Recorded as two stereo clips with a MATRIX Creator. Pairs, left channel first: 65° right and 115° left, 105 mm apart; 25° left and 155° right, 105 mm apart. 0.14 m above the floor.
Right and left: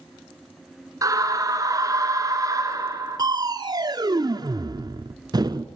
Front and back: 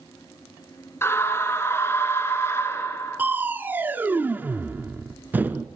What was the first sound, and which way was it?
A scream, 75° left.